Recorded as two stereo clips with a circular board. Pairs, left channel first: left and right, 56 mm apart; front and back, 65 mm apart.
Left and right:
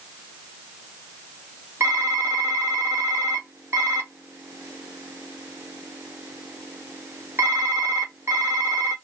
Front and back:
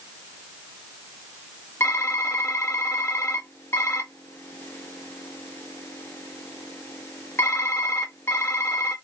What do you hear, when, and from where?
1.8 s typing on a keyboard: 50° right, 1.9 m